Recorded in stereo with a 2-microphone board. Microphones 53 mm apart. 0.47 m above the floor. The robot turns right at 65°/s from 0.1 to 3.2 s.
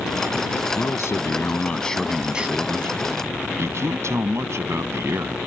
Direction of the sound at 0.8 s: 95° left.